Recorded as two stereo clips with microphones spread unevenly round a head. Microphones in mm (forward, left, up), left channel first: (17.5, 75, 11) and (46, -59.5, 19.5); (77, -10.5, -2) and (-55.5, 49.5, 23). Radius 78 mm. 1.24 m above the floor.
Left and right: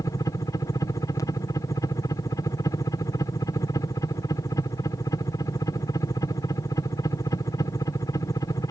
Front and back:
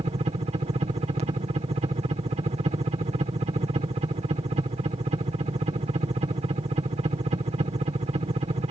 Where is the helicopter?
145° left.